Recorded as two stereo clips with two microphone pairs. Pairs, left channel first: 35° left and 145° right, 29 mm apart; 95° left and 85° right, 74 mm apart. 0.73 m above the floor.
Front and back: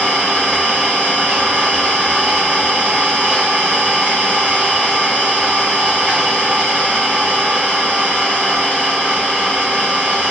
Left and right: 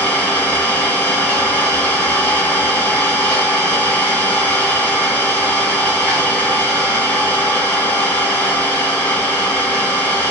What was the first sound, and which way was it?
An engine running, 160° left.